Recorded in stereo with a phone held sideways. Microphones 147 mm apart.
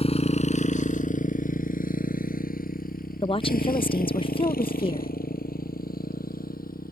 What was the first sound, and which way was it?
A motorcycle, 45° left (ahead or behind).